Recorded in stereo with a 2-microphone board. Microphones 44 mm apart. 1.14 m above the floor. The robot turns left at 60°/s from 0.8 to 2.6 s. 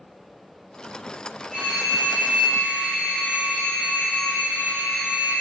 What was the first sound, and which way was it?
A phone ringing, 155° right.